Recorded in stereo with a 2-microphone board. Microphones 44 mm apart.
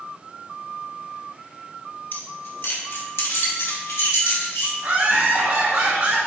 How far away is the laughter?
About 2.5 m.